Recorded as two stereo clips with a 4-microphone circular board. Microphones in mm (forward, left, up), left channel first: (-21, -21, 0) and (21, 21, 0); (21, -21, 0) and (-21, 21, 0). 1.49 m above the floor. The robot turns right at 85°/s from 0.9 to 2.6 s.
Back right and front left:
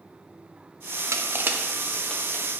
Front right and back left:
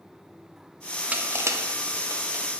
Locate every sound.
1.1 s crushing: 70° left, 0.7 m; by 2.4 s 175° right, 0.7 m